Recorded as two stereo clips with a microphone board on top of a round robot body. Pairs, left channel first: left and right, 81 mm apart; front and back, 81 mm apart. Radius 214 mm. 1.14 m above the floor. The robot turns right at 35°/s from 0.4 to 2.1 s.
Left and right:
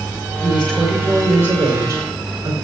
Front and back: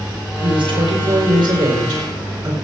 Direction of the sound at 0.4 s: 165° left.